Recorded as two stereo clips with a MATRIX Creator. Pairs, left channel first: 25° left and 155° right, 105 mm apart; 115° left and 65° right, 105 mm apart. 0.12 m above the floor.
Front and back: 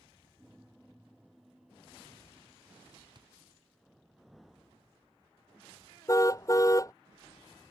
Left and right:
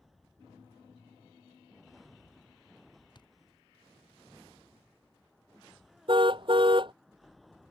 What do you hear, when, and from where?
3.1 s a thud: 160° left
6.1 s a car horn: 35° right